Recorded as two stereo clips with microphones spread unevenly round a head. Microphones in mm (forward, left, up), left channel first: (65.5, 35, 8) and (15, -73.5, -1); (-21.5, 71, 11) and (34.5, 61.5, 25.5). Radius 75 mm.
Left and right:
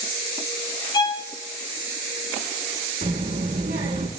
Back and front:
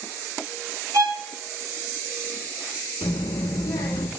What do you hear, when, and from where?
0.9 s a violin: 15° left, 4 m
3.0 s a child speaking: 155° right, 2.5 m